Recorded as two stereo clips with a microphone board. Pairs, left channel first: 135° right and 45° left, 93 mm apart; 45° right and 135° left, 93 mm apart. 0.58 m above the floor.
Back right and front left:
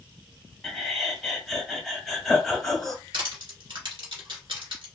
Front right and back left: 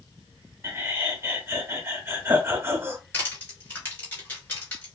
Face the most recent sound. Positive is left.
turn(degrees=25)